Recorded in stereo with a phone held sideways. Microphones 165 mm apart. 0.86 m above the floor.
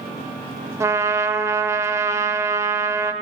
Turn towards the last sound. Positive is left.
turn(degrees=-15)  # may be behind; listen again after turning